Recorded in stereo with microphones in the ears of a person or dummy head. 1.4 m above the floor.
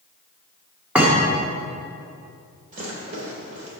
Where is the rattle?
50° right (ahead or behind), 2 m.